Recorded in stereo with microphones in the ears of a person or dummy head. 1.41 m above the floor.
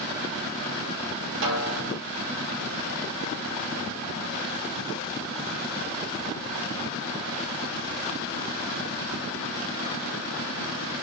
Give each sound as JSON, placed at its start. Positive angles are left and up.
{"t": 1.4, "sound": "a snare drum", "side_deg": -65, "distance_m": 3.0}